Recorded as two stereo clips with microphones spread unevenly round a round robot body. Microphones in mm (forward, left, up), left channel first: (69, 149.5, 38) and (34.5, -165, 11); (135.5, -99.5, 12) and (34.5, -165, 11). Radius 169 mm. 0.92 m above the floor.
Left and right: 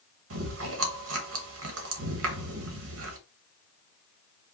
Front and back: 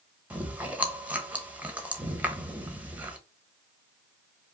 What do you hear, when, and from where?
0.3 s chewing: 70° right, 1.3 m